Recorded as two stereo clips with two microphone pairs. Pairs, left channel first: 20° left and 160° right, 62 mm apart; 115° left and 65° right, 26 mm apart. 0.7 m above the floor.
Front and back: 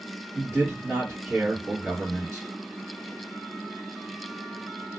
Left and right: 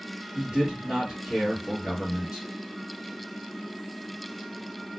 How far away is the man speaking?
About 1.4 m.